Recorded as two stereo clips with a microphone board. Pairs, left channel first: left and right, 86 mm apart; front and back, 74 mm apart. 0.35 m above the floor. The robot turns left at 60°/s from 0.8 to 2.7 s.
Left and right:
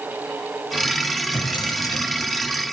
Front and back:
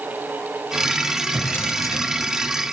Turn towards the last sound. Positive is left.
turn(degrees=-5)